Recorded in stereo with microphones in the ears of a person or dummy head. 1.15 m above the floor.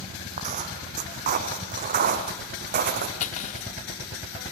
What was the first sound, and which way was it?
Footsteps, 40° right (ahead or behind).